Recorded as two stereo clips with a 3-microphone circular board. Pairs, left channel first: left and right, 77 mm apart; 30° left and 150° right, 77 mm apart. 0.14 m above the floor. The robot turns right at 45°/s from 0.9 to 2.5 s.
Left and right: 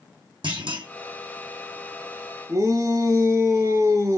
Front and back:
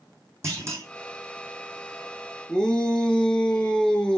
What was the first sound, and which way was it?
A clunk, 95° right.